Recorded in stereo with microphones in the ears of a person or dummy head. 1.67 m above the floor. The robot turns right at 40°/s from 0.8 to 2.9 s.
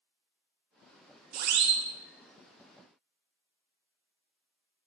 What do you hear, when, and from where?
1.3 s a siren: 45° right (ahead or behind), 2 m; by 1.8 s 60° right (ahead or behind), 2 m